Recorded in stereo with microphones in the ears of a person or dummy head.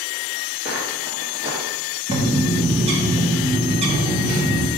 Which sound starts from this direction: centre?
Footsteps, at 0.7 s.